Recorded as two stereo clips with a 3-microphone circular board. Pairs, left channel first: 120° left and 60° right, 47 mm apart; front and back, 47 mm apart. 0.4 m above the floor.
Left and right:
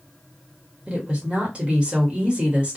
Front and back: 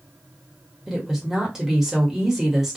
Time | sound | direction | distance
0.9 | a woman speaking | 105° right | 1.1 m